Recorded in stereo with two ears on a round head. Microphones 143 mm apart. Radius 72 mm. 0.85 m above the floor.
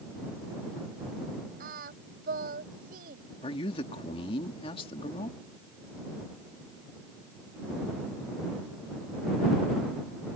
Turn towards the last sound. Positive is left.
turn(degrees=40)  # may be behind; listen again after turning